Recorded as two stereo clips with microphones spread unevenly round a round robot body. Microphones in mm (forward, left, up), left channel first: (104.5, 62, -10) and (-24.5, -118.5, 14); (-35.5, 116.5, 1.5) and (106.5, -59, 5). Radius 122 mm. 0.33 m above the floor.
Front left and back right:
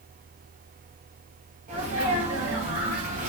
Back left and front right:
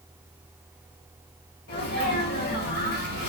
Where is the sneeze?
175° left, 3.5 m.